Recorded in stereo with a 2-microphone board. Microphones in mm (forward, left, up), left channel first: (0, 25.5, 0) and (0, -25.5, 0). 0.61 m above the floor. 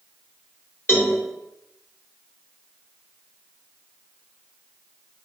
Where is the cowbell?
55° left (ahead or behind), 1.2 m.